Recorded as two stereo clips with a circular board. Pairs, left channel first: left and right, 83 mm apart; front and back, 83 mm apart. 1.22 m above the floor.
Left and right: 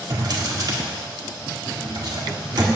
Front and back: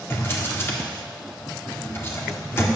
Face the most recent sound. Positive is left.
turn(degrees=-60)